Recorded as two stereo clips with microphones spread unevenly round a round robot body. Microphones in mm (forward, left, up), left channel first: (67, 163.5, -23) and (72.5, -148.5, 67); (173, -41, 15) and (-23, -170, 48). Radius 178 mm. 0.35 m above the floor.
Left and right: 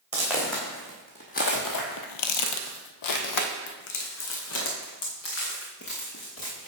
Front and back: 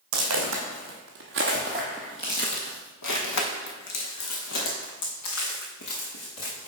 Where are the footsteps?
170° right, 1.5 m; by 6.7 s 40° left, 3.5 m.